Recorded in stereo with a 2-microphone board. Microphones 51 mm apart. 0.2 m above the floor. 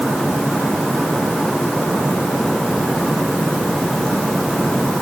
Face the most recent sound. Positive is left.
No sound to turn to.